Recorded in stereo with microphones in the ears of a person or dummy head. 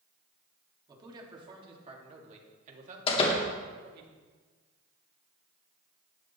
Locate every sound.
0.9 s a man speaking: 25° right (ahead or behind), 3 m; by 4.1 s 65° right (ahead or behind), 2.5 m
3.1 s a door slam: 35° left (ahead or behind), 2 m